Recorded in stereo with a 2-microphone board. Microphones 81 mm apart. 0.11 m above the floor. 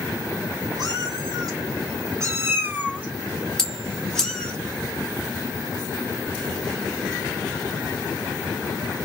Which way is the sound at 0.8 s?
60° right (ahead or behind).